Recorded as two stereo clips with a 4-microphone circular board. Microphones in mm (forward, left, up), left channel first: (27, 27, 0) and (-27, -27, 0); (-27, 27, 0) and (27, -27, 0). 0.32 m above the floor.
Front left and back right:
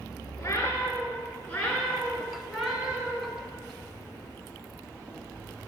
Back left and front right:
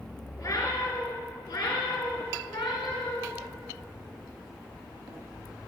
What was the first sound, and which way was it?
A cat meowing, 95° left.